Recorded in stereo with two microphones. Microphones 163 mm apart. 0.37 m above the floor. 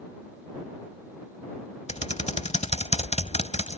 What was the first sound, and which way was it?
Typing on a keyboard, 45° left (ahead or behind).